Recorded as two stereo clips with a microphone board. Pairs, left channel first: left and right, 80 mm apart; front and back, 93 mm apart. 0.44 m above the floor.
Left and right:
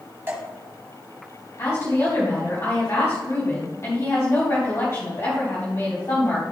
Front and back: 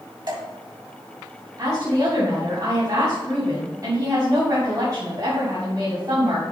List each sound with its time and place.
0.3 s dripping: 150° right, 3 m
1.6 s a woman speaking: 135° left, 3.5 m